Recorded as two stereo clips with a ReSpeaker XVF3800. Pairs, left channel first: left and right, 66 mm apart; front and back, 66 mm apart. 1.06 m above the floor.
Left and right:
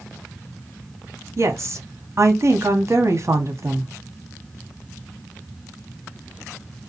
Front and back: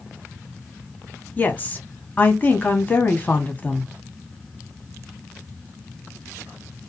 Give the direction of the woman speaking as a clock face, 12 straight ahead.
2 o'clock.